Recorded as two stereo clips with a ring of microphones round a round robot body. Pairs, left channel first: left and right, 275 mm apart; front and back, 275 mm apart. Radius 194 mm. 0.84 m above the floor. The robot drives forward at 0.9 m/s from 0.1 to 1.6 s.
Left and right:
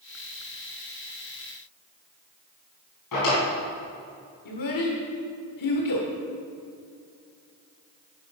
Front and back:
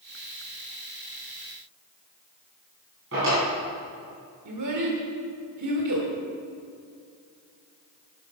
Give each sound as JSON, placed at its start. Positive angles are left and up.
{"t": 3.1, "sound": "a drawer", "azimuth_deg": 120, "distance_m": 4.5}
{"t": 4.5, "sound": "a child speaking", "azimuth_deg": 130, "distance_m": 1.4}